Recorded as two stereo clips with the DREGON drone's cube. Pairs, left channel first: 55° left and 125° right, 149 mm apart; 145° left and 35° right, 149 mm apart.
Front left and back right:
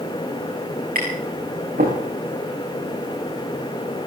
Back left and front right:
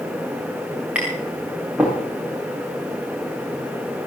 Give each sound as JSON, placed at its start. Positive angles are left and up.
{"t": 0.9, "sound": "tapping", "azimuth_deg": -115, "distance_m": 5.5}